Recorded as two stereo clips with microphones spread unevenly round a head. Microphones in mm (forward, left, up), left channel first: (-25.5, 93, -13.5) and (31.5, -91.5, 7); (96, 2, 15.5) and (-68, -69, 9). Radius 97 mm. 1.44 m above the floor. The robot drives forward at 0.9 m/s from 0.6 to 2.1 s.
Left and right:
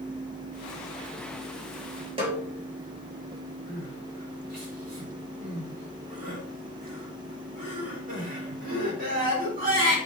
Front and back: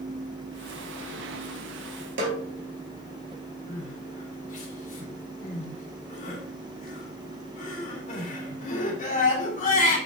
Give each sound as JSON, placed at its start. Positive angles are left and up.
{"t": 2.2, "sound": "a snare drum", "azimuth_deg": -140, "distance_m": 3.5}
{"t": 3.7, "sound": "crying", "azimuth_deg": -25, "distance_m": 4.0}